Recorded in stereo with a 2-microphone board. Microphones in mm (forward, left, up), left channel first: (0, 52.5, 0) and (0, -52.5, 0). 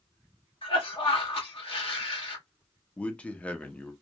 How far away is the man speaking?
About 0.5 m.